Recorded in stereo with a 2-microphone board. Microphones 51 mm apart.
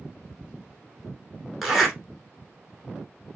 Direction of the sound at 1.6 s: Centre (ahead or behind).